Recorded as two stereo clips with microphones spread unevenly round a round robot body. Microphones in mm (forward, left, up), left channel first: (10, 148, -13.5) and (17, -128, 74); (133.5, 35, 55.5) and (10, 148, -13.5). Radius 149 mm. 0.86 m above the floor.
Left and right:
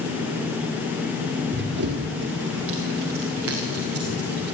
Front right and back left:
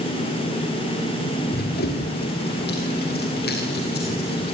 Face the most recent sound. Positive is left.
turn(degrees=-60)